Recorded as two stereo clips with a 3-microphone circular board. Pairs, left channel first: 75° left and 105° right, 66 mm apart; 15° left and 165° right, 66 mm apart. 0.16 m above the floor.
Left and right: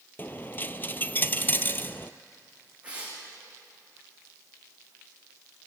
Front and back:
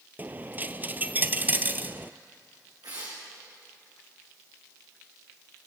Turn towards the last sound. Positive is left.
turn(degrees=-175)